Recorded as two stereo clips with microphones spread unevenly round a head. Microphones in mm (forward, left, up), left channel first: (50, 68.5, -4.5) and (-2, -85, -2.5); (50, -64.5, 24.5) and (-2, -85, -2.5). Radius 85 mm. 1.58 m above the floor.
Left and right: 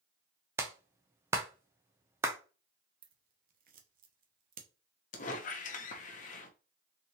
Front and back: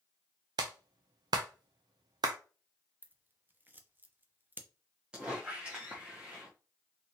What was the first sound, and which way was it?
A clap, 175° left.